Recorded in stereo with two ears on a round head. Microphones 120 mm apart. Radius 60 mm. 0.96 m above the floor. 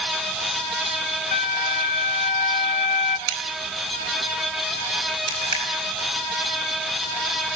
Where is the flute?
55° left (ahead or behind), 0.7 m.